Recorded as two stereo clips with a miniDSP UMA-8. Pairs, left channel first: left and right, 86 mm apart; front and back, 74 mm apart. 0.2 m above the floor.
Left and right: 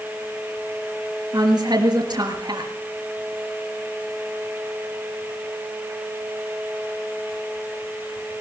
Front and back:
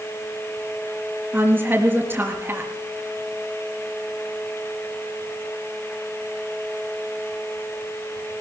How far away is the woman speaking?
About 4 m.